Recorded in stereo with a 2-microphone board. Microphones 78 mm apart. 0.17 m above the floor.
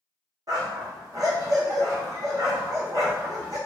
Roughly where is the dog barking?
Right.